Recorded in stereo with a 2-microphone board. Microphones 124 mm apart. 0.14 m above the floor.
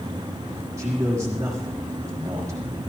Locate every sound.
0.8 s a man speaking: 25° right (ahead or behind), 6 m